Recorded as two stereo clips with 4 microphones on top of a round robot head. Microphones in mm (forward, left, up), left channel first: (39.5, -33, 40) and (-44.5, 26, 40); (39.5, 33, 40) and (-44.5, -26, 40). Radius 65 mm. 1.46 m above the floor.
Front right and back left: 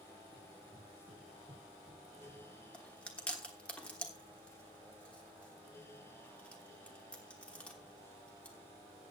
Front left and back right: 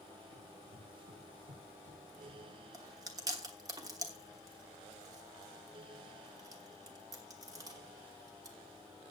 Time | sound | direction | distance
0.3 | running footsteps | 170° right | 7 m
2.7 | chewing | 110° right | 1.1 m